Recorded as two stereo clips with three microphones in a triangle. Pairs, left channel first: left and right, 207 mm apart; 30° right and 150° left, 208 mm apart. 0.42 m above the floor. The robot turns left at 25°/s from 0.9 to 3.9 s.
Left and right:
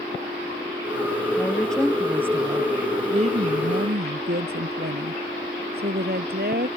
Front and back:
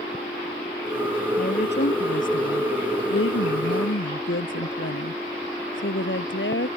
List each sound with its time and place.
1.4 s a woman speaking: 10° left; by 6.7 s 50° right